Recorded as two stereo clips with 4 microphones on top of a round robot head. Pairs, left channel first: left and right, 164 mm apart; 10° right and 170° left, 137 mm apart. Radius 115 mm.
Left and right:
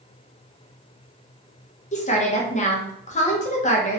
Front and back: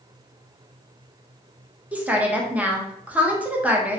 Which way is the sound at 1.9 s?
95° left.